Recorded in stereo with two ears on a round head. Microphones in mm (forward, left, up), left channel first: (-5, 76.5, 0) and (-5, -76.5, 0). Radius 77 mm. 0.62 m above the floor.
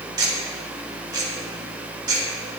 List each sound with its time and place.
0.2 s ticking: 25° right (ahead or behind), 1.9 m